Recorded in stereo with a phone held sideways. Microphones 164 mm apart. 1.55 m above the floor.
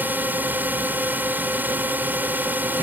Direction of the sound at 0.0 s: 10° right (ahead or behind).